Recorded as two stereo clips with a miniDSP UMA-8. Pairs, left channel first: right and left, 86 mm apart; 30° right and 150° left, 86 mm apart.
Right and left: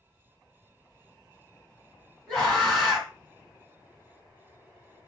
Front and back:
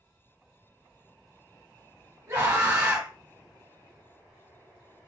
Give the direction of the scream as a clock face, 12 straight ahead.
5 o'clock.